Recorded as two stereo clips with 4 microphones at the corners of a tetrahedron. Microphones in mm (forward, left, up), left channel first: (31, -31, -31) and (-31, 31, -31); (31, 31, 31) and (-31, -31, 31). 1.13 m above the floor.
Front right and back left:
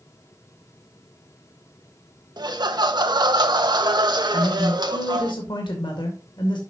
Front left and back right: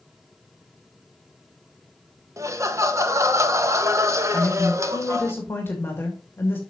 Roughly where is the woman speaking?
Ahead.